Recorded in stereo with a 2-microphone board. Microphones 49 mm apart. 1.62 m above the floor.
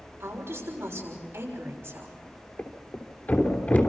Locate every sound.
0.2 s a woman speaking: 50° right (ahead or behind), 6.5 m
2.6 s a thud: 35° left (ahead or behind), 3 m